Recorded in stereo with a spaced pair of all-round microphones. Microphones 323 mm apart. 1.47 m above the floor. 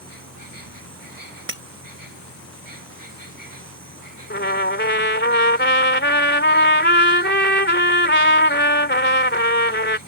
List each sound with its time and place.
0.0 s an insect: 90° right
1.5 s breaking glass: 40° right (ahead or behind)
4.3 s a trumpet: 35° left (ahead or behind)